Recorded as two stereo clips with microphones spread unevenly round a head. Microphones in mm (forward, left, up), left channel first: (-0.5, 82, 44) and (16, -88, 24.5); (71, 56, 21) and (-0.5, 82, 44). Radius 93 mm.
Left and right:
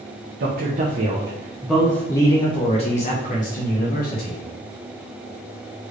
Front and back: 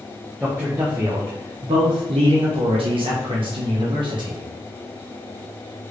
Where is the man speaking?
115° right, 0.9 m; by 4.4 s 135° left, 1.8 m.